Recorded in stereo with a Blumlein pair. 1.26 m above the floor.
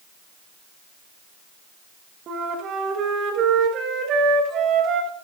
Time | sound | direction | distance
2.3 | a flute | 30° right | 1.2 m